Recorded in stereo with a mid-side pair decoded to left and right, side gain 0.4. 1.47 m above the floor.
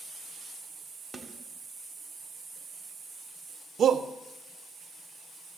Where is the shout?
60° right, 1.0 m.